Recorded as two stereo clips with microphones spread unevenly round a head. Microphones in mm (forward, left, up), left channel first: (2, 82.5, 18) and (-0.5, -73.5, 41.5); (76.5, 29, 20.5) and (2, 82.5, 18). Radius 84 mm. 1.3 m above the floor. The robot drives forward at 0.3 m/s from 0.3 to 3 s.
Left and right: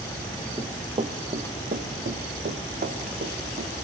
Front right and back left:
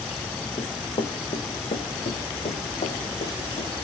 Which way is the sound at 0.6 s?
35° right.